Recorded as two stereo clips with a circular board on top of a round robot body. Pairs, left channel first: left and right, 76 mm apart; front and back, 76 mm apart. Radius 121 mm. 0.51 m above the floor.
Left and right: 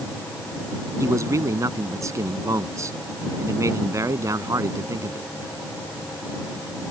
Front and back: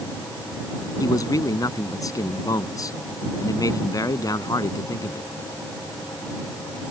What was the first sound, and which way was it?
A man speaking, 40° right.